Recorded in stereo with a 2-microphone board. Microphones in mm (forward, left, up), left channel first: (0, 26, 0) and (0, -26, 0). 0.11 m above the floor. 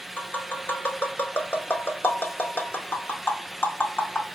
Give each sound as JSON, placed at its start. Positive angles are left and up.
{"t": 0.2, "sound": "tapping", "side_deg": 40, "distance_m": 0.6}